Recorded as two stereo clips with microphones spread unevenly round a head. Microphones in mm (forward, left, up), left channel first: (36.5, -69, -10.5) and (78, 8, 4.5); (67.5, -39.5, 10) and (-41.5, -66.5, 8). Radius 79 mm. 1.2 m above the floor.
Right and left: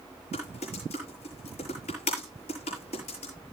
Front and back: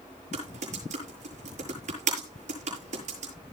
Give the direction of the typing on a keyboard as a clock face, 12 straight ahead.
5 o'clock.